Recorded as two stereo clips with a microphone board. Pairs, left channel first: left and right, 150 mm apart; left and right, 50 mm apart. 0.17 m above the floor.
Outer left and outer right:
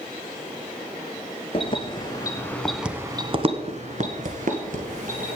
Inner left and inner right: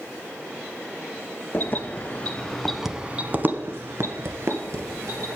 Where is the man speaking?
No man speaking in this recording.